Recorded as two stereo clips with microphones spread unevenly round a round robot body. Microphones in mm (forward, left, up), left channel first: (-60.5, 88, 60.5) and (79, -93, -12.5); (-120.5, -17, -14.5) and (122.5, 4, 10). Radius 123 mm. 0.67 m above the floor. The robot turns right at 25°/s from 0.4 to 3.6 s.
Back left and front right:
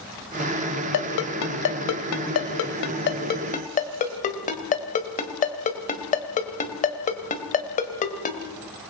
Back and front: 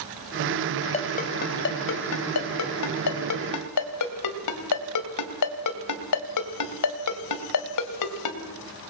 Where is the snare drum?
No snare drum in this recording.